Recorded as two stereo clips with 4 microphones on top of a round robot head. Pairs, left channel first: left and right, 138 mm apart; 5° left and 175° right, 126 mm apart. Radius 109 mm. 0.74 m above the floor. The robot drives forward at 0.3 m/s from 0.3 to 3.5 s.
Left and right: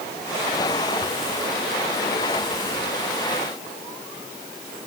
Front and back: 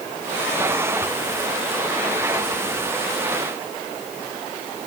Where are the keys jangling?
No keys jangling in this recording.